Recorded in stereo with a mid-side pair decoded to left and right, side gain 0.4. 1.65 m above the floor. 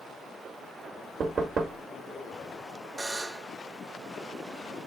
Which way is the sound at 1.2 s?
50° right.